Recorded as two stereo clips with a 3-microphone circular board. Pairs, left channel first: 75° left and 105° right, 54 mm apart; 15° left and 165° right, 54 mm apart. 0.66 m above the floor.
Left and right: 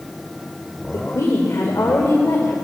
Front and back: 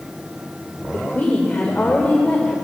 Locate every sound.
0.9 s a woman speaking: 75° left, 1.9 m